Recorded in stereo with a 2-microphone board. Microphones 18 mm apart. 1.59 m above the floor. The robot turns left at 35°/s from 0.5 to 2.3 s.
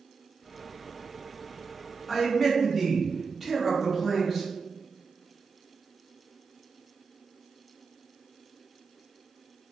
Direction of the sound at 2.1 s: 10° left (ahead or behind).